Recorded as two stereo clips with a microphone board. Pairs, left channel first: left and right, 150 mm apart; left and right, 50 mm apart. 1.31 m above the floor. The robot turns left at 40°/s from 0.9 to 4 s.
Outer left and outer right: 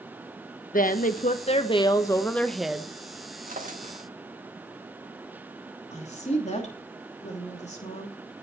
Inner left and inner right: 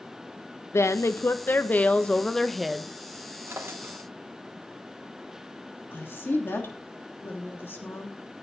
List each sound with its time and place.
0.7 s a woman speaking: 70° left, 0.9 m; by 2.9 s 10° right, 0.9 m
3.5 s a drawer: 65° right (ahead or behind), 1.5 m; by 4.1 s 45° right (ahead or behind), 1.5 m
5.9 s a woman speaking: 50° left (ahead or behind), 3 m